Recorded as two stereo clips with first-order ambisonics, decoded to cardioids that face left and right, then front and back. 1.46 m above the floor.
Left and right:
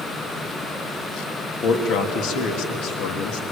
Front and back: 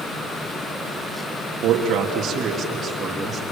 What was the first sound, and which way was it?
A man speaking, 135° left.